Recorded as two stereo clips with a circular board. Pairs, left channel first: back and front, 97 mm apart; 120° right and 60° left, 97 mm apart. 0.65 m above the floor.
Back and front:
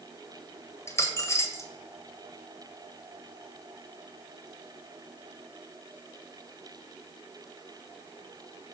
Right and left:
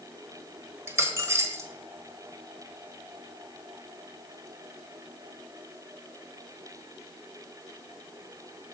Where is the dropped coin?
120° left, 1.4 m.